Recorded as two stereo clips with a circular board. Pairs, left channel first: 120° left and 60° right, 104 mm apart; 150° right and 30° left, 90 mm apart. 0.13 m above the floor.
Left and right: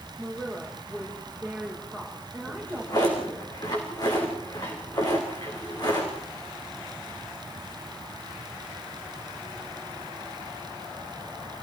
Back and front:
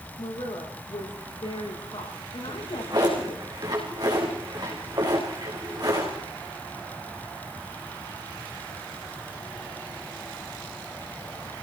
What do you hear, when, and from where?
0.2 s a woman speaking: 160° right, 8.5 m
2.5 s a drawer: 70° left, 6 m